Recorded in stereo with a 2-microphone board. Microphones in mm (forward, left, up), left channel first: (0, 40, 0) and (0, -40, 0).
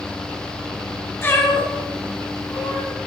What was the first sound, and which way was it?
A cat meowing, 30° left (ahead or behind).